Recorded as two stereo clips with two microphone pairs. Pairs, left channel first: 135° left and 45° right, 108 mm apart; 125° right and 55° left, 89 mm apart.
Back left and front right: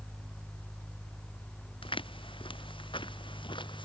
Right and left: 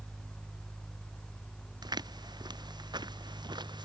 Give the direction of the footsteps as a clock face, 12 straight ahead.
9 o'clock.